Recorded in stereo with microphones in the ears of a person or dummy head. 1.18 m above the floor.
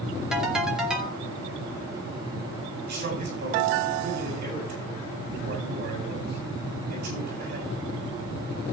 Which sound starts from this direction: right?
A man speaking, at 2.9 s.